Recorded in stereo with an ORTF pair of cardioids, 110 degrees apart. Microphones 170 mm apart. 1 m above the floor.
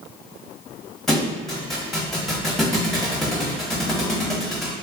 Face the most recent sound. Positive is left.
turn(degrees=0)